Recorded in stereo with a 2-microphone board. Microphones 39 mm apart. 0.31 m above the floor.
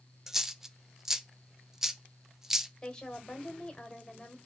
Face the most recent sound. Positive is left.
turn(degrees=25)  # may be behind; listen again after turning